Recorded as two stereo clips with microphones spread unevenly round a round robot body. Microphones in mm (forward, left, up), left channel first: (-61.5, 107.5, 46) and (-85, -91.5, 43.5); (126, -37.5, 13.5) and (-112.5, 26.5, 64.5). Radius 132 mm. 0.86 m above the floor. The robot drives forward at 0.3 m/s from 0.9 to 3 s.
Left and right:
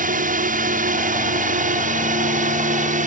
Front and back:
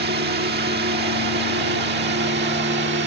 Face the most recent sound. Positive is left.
turn(degrees=-145)